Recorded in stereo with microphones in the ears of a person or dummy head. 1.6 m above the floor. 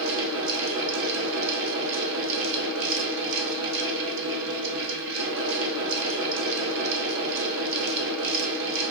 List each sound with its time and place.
0.0 s a fan: 70° right (ahead or behind), 0.8 m